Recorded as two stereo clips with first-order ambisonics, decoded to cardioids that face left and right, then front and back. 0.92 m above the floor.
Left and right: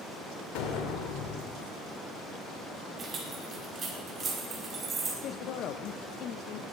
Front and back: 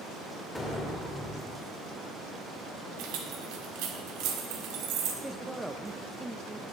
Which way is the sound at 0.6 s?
90° left.